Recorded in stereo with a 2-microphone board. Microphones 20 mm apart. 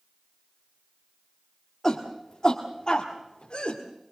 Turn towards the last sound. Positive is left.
turn(degrees=65)  # may be behind; listen again after turning